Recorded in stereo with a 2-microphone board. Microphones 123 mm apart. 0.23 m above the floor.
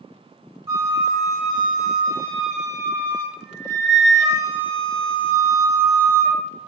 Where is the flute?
25° right (ahead or behind), 1.1 m.